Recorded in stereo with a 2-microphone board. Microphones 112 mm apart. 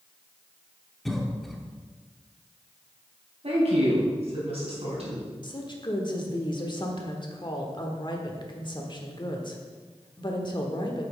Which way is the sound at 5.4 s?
45° left (ahead or behind).